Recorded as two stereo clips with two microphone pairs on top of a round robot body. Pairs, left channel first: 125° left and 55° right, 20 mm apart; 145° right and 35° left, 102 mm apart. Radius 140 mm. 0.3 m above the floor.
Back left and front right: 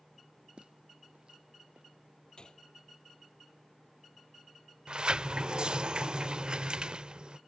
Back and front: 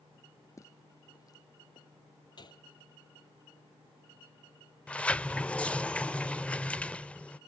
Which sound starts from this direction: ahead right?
A sliding door, at 4.9 s.